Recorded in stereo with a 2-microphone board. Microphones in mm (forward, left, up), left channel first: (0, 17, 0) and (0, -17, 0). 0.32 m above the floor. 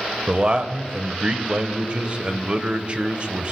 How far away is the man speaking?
About 1.0 m.